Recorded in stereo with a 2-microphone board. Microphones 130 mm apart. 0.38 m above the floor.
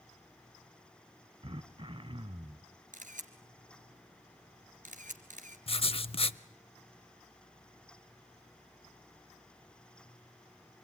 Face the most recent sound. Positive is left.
turn(degrees=50)  # may be behind; listen again after turning